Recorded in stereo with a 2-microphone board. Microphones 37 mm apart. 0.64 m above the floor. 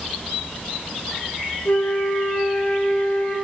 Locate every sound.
1.6 s a flute: 65° left (ahead or behind), 0.9 m